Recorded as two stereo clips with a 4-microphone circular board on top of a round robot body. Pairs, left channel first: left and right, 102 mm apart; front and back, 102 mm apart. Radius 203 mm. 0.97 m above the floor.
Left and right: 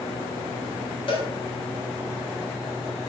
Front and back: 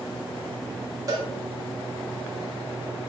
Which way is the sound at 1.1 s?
125° left.